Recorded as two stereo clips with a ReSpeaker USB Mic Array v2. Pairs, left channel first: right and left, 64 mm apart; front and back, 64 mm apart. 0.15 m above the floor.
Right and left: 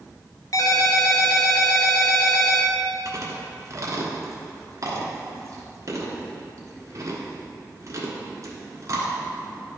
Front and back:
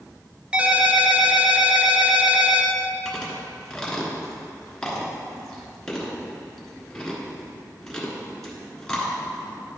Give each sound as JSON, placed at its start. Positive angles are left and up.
{"t": 0.5, "sound": "a ringtone", "azimuth_deg": -110, "distance_m": 1.0}
{"t": 3.0, "sound": "chewing", "azimuth_deg": 80, "distance_m": 1.5}